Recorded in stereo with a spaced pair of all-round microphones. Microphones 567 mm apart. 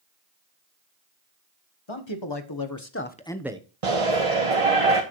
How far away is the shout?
About 1.3 m.